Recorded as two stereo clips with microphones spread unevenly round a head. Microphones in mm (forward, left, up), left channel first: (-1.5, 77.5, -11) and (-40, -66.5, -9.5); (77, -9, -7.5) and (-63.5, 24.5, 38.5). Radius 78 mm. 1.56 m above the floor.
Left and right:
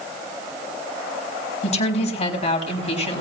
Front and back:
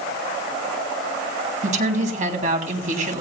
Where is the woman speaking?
125° left, 3 m.